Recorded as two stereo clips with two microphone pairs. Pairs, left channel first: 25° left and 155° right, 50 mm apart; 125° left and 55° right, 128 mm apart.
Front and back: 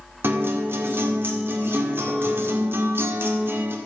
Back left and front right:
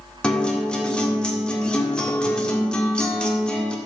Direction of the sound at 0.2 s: 155° right.